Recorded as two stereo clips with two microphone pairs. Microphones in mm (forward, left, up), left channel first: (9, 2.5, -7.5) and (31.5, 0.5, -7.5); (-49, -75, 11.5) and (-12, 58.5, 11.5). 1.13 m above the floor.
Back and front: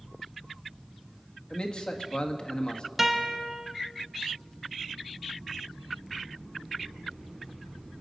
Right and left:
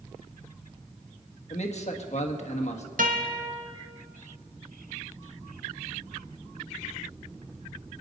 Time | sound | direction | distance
1.5 | a man speaking | 140° right | 1.5 m
3.0 | a guitar | 75° left | 1.6 m